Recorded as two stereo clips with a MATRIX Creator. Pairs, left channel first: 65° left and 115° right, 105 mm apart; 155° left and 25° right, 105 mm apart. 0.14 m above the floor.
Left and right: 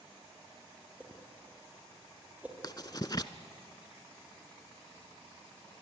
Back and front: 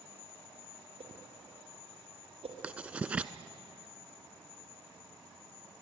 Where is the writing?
50° left, 0.7 m.